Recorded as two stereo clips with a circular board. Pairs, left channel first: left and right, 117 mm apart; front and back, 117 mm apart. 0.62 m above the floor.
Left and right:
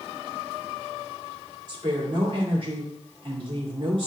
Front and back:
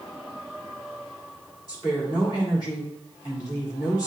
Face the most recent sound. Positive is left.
turn(degrees=-50)